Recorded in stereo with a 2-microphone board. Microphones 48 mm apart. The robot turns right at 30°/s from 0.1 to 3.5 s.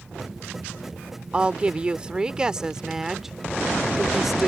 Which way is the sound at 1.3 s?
25° right (ahead or behind).